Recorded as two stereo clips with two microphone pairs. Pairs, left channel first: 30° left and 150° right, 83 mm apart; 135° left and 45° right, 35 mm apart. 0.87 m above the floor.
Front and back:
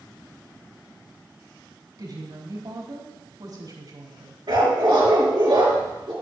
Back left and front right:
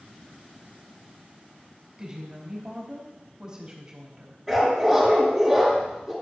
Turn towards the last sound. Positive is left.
turn(degrees=-135)